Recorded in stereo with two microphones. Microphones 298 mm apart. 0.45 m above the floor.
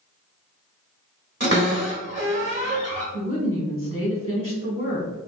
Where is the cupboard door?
40° right (ahead or behind), 1.4 m.